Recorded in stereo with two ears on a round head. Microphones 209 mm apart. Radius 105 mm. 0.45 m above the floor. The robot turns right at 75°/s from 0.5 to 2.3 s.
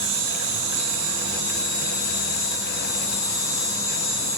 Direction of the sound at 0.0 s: 75° right.